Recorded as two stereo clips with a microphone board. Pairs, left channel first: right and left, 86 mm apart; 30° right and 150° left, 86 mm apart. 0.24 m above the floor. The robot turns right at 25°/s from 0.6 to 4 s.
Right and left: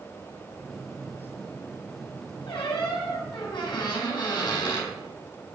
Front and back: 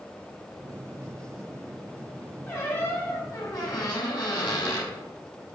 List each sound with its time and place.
2.5 s a squeak: 90° right, 4.5 m; by 4.9 s 50° right, 4.5 m